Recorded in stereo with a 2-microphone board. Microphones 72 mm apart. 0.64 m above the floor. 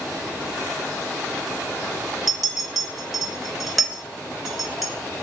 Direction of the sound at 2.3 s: Centre (ahead or behind).